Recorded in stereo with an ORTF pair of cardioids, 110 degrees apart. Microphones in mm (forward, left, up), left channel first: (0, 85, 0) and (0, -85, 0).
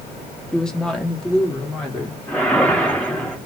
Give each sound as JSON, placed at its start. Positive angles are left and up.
{"t": 0.5, "sound": "a woman speaking", "azimuth_deg": 5, "distance_m": 1.2}
{"t": 2.3, "sound": "a whoosh", "azimuth_deg": 10, "distance_m": 1.9}